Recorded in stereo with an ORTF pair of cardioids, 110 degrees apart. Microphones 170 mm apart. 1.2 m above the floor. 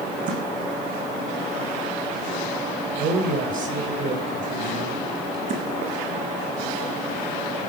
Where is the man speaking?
55° right, 6 m.